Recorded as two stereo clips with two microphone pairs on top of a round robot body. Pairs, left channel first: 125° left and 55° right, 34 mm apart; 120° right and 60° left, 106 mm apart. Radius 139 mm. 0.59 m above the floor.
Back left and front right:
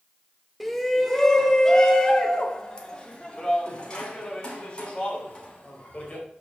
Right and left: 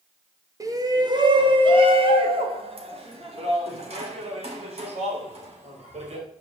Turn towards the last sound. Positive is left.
turn(degrees=70)